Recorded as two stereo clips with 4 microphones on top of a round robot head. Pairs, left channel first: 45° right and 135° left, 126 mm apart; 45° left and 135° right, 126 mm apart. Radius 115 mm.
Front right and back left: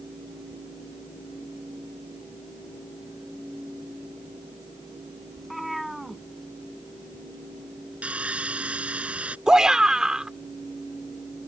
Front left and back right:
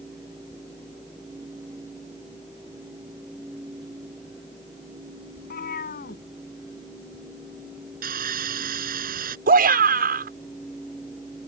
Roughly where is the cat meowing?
Ahead left.